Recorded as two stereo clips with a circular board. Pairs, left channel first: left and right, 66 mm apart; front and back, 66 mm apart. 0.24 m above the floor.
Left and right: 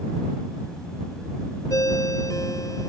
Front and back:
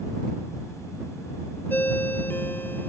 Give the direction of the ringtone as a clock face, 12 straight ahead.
10 o'clock.